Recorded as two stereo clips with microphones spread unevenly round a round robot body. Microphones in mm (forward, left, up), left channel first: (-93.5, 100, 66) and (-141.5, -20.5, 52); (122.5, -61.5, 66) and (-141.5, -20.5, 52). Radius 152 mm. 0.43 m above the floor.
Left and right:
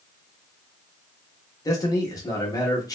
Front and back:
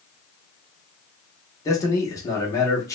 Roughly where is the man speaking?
Ahead left.